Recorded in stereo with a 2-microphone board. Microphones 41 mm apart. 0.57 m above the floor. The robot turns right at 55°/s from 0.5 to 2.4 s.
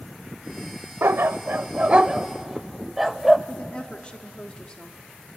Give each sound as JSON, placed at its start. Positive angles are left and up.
{"t": 1.0, "sound": "a dog barking", "side_deg": -75, "distance_m": 0.5}
{"t": 3.5, "sound": "a woman speaking", "side_deg": 25, "distance_m": 0.9}